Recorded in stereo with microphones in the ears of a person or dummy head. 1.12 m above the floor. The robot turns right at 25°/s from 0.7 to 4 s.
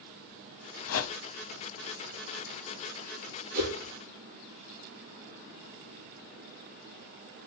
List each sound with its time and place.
0.9 s a whoosh: 80° left, 0.7 m; by 1.2 s 75° left (ahead or behind), 0.7 m
3.5 s a whoosh: 50° right (ahead or behind), 5.5 m